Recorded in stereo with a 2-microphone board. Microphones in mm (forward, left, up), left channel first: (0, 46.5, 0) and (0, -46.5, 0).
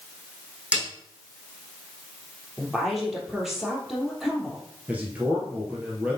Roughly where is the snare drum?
Centre.